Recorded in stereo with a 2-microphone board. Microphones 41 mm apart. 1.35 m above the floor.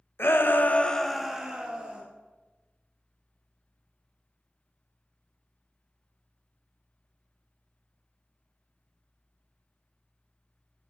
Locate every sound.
0.2 s a shout: 70° left (ahead or behind), 0.9 m; by 2.0 s 30° right (ahead or behind), 1.5 m